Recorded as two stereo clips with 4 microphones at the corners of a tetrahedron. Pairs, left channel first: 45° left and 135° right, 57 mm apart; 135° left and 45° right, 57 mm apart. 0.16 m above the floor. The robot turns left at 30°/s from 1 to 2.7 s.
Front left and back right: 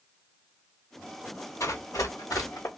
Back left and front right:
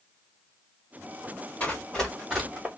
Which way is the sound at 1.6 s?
65° left.